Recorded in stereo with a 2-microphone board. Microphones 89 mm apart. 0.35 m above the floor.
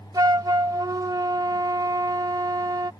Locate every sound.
0.1 s a flute: 45° right (ahead or behind)